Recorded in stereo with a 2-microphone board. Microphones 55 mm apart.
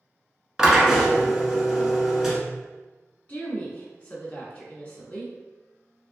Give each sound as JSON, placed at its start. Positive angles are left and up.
{"t": 0.6, "sound": "a drill", "side_deg": -10, "distance_m": 1.0}
{"t": 3.3, "sound": "a woman speaking", "side_deg": 30, "distance_m": 1.2}